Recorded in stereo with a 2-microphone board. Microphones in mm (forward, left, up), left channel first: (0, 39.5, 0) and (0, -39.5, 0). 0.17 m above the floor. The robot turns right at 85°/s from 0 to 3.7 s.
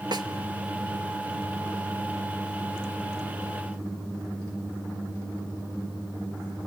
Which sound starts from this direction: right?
A snare drum, at 0.1 s.